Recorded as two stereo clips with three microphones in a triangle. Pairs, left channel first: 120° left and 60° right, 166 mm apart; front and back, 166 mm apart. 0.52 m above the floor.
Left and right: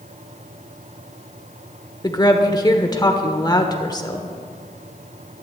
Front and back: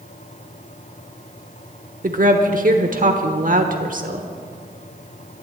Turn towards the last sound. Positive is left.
turn(degrees=180)